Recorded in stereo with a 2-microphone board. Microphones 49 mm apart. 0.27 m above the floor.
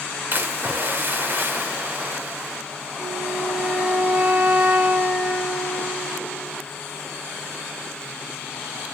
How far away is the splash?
About 0.6 m.